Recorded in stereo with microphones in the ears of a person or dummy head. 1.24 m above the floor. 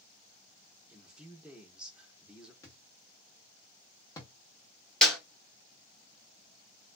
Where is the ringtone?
No ringtone in this recording.